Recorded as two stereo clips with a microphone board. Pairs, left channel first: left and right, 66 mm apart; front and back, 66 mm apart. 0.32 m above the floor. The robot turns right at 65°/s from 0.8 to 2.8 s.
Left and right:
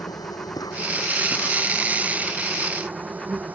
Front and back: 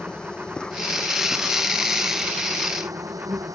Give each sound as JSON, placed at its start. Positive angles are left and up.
{"t": 0.0, "sound": "an insect", "azimuth_deg": 75}